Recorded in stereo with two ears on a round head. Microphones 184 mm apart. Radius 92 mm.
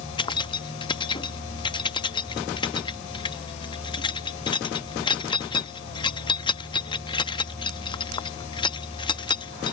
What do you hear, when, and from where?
0.2 s keys jangling: 25° left (ahead or behind)